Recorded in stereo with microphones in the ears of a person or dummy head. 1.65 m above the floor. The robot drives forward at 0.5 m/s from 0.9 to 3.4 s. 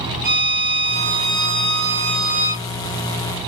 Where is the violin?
50° right (ahead or behind), 3.5 m; by 2.7 s 60° right (ahead or behind), 3.5 m.